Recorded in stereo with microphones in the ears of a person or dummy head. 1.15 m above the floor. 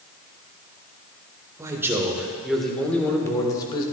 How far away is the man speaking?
About 1.7 m.